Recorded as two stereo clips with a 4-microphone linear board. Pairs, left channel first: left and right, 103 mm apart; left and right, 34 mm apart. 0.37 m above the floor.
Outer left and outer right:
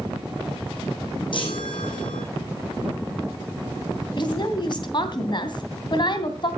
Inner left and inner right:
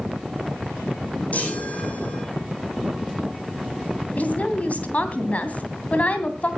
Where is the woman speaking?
50° left (ahead or behind), 2.5 m.